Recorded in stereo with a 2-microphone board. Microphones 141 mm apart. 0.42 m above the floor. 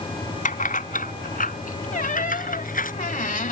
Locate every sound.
0.5 s keys jangling: 70° left (ahead or behind); by 2.9 s 80° left
1.9 s a squeak: 75° left (ahead or behind)